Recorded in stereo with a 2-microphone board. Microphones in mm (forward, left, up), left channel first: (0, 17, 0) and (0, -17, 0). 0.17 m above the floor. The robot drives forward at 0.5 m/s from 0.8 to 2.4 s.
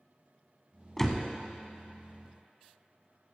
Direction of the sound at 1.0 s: 10° left (ahead or behind).